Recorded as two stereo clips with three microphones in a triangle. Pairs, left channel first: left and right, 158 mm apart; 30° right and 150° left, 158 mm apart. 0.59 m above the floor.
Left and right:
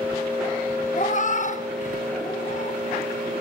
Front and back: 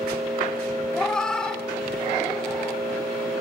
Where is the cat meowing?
55° left, 0.6 m.